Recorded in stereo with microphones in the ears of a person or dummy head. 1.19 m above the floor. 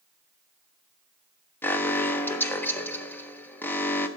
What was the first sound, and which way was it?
An alarm, 10° left (ahead or behind).